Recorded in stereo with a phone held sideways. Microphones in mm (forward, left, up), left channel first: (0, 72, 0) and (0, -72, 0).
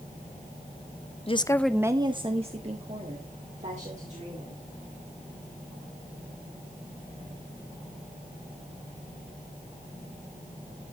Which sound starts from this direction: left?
A woman speaking, at 1.3 s.